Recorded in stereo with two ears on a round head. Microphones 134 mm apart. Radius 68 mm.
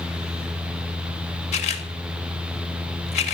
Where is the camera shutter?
50° left (ahead or behind), 1.8 m.